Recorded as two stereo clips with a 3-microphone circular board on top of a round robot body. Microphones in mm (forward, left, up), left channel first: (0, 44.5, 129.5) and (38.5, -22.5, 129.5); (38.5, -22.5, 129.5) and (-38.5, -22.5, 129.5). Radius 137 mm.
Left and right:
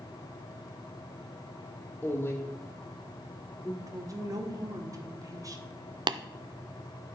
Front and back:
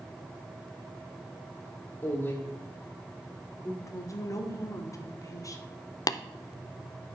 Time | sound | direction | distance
2.0 | a woman speaking | 55° left | 1.6 m
3.8 | a woman speaking | 35° right | 2 m
6.1 | tapping | 40° right | 0.5 m